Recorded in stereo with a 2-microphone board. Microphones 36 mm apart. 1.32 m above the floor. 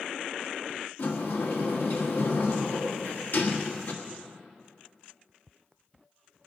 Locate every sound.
1.0 s a sliding door: 65° left (ahead or behind), 1.5 m